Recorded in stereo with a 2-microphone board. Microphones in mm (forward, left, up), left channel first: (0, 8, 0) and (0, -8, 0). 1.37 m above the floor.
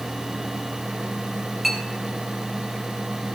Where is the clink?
Centre (ahead or behind), 4 m.